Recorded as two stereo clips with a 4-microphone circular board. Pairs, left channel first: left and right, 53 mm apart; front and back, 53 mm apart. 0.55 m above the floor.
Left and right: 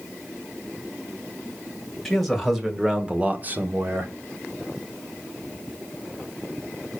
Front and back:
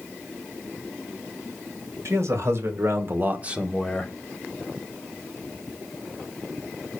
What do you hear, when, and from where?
2.0 s a man speaking: straight behind, 2.5 m; by 4.1 s 70° right, 1.4 m